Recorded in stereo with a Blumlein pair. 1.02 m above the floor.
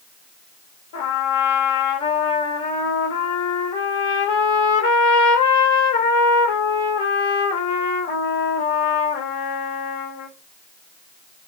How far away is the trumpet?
About 0.9 m.